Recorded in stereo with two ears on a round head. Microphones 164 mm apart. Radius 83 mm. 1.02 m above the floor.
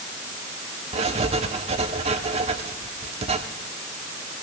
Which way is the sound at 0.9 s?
35° right (ahead or behind).